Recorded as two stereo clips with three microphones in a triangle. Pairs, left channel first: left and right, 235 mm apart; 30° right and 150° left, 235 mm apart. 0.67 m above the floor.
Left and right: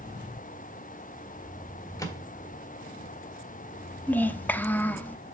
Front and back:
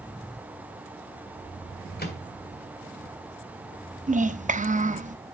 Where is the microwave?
15° left, 1.5 m.